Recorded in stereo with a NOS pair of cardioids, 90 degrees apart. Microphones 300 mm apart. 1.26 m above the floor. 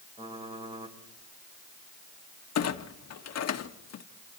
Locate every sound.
0.2 s typing on a keyboard: 20° right, 4 m
2.5 s a clunk: 55° left, 1.6 m